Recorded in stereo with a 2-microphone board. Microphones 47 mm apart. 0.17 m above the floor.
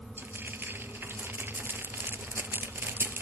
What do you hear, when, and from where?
0.2 s frying: 50° right (ahead or behind), 0.7 m